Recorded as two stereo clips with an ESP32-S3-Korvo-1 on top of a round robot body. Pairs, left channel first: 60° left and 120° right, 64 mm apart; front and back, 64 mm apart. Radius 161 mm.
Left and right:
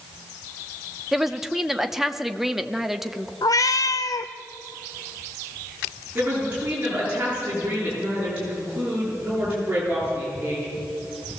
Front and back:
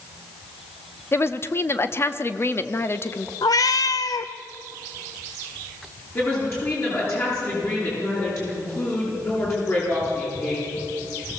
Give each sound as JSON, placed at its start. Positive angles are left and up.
{"t": 1.1, "sound": "a woman speaking", "azimuth_deg": -35, "distance_m": 1.3}
{"t": 3.4, "sound": "a cat meowing", "azimuth_deg": 25, "distance_m": 0.8}
{"t": 6.2, "sound": "a woman speaking", "azimuth_deg": -50, "distance_m": 8.5}